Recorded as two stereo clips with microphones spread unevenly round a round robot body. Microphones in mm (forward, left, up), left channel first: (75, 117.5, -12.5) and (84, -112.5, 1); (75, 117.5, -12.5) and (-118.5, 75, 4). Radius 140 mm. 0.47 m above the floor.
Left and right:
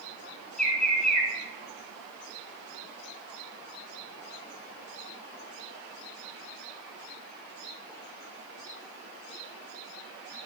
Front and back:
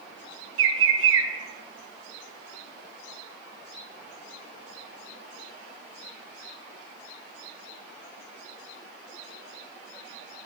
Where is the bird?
Straight behind, 0.8 m.